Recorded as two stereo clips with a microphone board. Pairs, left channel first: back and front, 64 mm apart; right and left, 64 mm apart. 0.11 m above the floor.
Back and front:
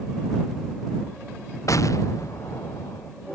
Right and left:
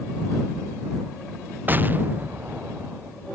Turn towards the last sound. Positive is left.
turn(degrees=150)